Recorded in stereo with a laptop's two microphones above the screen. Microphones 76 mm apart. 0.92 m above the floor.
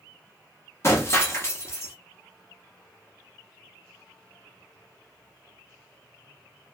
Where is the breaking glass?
35° left (ahead or behind), 0.7 m.